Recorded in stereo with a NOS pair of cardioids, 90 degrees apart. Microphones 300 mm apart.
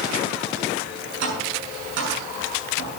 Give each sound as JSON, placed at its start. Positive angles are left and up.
{"t": 1.2, "sound": "tapping", "azimuth_deg": -65, "distance_m": 8.0}